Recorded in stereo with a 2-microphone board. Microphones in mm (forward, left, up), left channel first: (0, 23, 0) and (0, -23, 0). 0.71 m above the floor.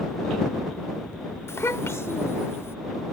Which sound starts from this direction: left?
A child speaking, at 1.5 s.